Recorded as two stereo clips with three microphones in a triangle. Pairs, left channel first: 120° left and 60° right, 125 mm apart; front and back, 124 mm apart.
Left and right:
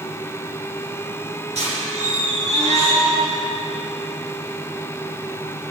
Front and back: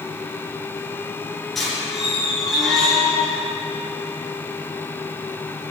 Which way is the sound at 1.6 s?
90° right.